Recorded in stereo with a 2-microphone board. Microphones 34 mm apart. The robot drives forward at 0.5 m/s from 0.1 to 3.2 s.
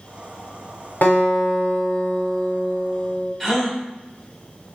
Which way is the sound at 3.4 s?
5° left (ahead or behind).